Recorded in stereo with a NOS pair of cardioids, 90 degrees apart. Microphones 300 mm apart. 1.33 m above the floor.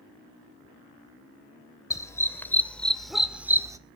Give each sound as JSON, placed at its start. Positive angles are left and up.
{"t": 1.9, "sound": "a dog barking", "azimuth_deg": 10, "distance_m": 2.5}